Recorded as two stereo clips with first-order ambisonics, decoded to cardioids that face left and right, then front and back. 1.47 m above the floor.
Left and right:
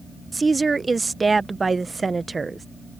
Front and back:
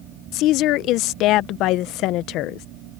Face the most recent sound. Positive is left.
turn(degrees=-15)